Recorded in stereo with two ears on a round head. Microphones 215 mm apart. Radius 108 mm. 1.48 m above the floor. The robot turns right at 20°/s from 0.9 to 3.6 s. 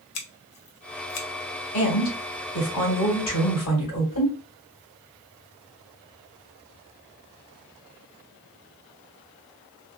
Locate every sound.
0.1 s scissors: 65° left (ahead or behind), 0.7 m; by 1.3 s 70° left (ahead or behind), 0.7 m
1.7 s a woman speaking: 35° left, 1.8 m; by 4.3 s 70° left, 1.8 m